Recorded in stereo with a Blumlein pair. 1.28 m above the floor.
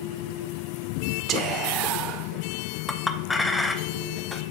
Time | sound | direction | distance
1.3 | whispering | 30° right | 0.7 m
2.9 | a clink | 10° left | 0.5 m